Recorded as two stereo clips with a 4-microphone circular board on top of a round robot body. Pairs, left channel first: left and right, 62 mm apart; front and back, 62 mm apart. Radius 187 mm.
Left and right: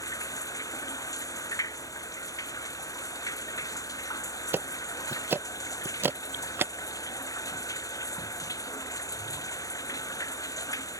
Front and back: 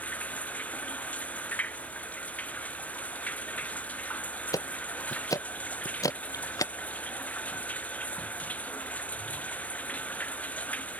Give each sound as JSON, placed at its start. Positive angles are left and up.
{"t": 0.0, "sound": "running water", "azimuth_deg": 65}
{"t": 4.5, "sound": "ticking", "azimuth_deg": -35}